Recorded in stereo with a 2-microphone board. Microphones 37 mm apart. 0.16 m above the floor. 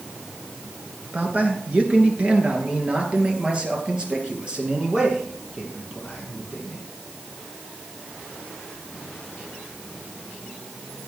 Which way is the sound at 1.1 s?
40° right (ahead or behind).